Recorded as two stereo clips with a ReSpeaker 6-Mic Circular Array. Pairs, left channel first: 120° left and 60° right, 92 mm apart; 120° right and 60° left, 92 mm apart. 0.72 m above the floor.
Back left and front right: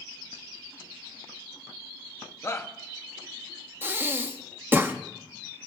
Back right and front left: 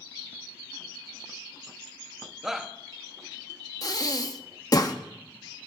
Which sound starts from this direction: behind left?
A shout, at 2.4 s.